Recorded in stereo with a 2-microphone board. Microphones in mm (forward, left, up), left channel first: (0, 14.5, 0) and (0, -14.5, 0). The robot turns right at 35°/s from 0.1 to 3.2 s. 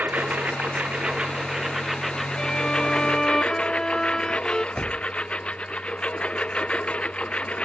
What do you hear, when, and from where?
0.0 s a lawn mower: 70° right; by 7.7 s 35° left
2.4 s a violin: 25° left (ahead or behind); by 4.7 s 20° left (ahead or behind)
4.8 s a door slam: 10° left (ahead or behind)